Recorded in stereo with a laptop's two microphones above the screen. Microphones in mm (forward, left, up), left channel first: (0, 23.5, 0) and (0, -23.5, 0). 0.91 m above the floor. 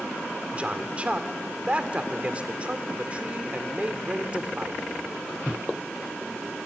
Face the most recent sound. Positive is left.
turn(degrees=-30)  # may be behind; listen again after turning